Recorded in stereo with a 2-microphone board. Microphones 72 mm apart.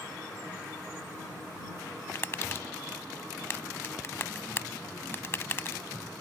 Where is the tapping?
35° left (ahead or behind).